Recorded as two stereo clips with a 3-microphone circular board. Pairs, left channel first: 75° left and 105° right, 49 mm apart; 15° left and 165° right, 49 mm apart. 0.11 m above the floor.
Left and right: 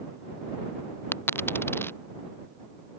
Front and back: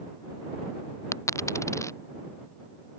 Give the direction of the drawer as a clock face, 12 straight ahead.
I don't hear a drawer.